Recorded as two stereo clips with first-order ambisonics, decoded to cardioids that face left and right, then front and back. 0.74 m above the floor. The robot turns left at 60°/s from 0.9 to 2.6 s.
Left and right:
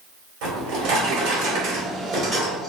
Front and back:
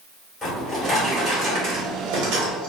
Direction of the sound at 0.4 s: 85° right.